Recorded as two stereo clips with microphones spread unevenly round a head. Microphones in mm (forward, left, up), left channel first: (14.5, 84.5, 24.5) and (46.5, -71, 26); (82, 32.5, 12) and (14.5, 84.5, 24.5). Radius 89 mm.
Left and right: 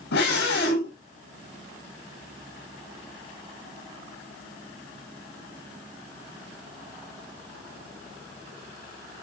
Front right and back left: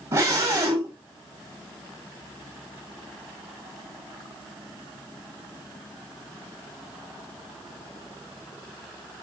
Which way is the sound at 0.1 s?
100° left.